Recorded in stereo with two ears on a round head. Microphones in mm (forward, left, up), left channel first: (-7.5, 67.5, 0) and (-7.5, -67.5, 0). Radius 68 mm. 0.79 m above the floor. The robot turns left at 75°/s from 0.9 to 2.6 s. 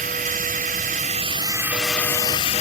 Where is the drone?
105° right; by 2.6 s 125° left.